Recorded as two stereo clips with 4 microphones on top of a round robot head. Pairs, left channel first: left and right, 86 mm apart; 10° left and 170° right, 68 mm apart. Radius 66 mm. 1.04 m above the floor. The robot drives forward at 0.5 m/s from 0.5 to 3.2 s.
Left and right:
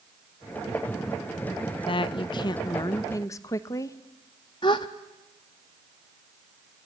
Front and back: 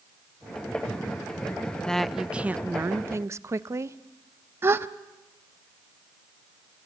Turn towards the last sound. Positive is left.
turn(degrees=140)